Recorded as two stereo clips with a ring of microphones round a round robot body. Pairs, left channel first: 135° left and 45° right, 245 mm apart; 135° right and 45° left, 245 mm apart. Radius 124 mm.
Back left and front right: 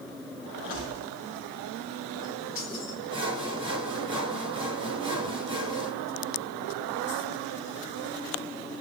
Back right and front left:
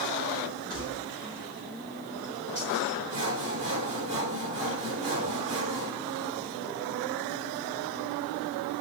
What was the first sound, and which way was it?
Keys jangling, 105° left.